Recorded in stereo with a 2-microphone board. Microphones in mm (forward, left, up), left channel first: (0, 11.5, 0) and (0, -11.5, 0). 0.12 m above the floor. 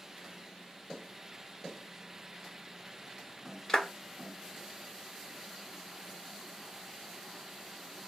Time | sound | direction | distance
3.7 | a clap | 30° left (ahead or behind) | 1.4 m